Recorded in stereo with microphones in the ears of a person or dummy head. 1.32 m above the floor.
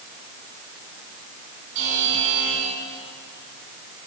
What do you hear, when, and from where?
1.8 s a buzzer: 70° right (ahead or behind), 4.5 m